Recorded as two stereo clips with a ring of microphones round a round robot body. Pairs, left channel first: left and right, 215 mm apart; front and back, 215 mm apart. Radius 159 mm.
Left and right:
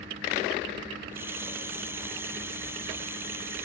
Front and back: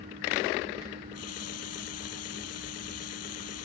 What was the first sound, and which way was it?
A running tap, 10° right.